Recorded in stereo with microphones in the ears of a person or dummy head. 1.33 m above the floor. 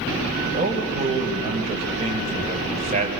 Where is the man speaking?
35° right (ahead or behind), 5.5 m.